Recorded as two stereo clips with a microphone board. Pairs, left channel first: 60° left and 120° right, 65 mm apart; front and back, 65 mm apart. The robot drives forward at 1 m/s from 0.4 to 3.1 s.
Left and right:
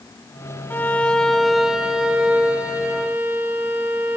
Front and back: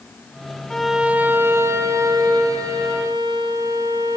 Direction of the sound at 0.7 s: 70° left.